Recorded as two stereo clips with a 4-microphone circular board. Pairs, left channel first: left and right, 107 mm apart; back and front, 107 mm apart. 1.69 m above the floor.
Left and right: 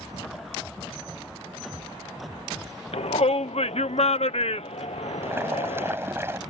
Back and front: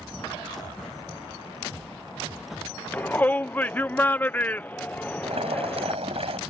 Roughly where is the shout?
Left.